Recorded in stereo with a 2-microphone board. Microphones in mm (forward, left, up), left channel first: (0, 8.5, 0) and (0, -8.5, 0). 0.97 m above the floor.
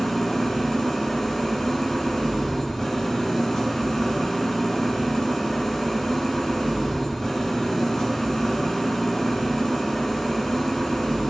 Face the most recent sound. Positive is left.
turn(degrees=25)  # may be behind; listen again after turning